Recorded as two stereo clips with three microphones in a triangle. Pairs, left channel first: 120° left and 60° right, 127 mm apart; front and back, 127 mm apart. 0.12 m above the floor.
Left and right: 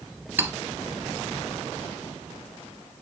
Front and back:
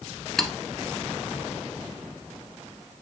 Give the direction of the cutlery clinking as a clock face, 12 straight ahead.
3 o'clock.